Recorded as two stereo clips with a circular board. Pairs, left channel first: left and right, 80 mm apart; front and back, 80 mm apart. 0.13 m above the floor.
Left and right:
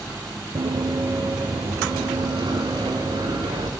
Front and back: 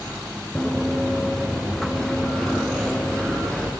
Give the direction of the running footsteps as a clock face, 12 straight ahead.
3 o'clock.